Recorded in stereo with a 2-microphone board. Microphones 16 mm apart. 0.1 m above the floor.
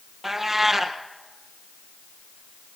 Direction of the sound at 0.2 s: 10° right (ahead or behind).